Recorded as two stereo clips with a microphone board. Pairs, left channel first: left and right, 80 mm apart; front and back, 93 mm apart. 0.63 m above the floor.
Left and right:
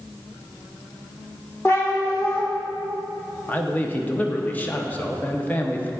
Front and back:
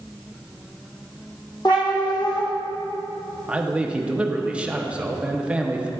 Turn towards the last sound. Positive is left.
turn(degrees=120)